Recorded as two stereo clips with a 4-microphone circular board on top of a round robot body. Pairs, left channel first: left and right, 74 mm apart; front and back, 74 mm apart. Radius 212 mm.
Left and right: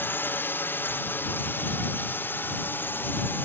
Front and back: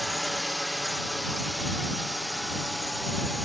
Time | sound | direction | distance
0.0 | a drone | 90° left | ?